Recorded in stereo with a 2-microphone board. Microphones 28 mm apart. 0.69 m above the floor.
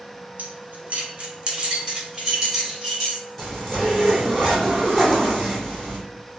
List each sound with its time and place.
0.4 s keys jangling: 60° right (ahead or behind), 0.7 m; by 3.2 s 15° right (ahead or behind), 2.5 m
3.4 s a zipper: centre (ahead or behind), 1.8 m